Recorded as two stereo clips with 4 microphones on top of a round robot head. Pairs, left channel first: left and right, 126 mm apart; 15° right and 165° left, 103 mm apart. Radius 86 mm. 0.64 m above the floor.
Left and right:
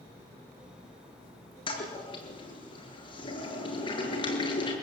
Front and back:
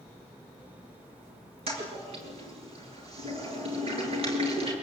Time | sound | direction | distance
1.7 | a toilet flushing | 140° left | 7 m